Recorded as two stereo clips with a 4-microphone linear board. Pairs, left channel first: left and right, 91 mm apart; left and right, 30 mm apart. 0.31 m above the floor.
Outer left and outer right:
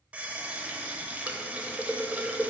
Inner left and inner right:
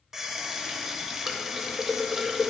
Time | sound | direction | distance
0.1 | a running tap | 15° right (ahead or behind) | 0.7 m